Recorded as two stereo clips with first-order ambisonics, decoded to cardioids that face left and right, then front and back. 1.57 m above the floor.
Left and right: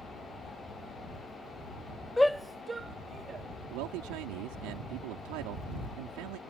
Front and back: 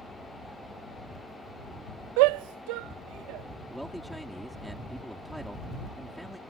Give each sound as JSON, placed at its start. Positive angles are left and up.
{"t": 2.2, "sound": "a shout", "azimuth_deg": 170}
{"t": 3.7, "sound": "a man speaking", "azimuth_deg": -90}